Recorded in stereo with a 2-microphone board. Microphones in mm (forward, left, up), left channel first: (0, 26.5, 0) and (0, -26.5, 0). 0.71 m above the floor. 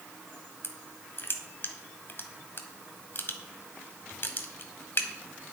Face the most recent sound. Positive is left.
turn(degrees=50)  # may be behind; listen again after turning